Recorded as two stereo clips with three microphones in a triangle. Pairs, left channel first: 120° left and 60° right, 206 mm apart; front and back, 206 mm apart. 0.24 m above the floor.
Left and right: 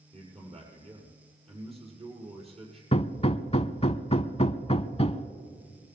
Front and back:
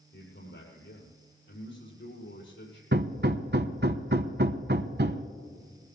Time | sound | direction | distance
0.1 | a man speaking | 5° right | 6 m
2.9 | hammering | 175° left | 0.7 m